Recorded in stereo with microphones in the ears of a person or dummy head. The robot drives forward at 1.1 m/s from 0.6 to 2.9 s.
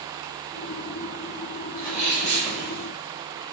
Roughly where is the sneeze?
Centre.